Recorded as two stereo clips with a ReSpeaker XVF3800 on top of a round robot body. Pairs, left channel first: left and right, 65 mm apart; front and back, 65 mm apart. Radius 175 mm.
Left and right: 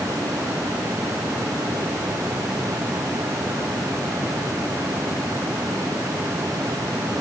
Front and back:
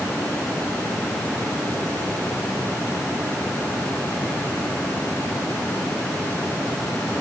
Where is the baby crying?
I don't hear a baby crying.